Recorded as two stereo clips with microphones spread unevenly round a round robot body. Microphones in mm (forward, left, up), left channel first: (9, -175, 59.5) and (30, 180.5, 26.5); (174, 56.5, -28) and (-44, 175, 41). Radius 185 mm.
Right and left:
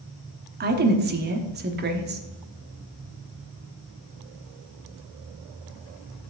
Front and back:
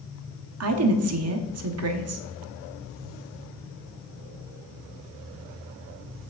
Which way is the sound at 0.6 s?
135° left.